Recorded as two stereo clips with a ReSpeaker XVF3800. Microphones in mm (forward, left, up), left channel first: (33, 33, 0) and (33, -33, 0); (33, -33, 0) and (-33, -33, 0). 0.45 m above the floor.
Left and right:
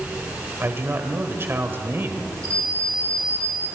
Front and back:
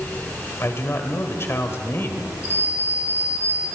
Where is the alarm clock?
50° right, 4.5 m.